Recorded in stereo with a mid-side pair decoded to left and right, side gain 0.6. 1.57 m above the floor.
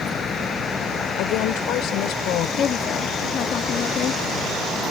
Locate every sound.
0.0 s a vehicle: 40° left; by 4.9 s 15° left
1.2 s a woman speaking: 70° left
2.6 s a woman speaking: 50° left